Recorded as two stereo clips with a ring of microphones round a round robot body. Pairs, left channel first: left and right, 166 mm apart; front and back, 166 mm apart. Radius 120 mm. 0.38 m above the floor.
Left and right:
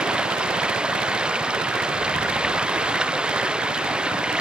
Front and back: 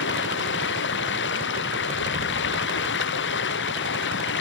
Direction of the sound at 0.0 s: 5° right.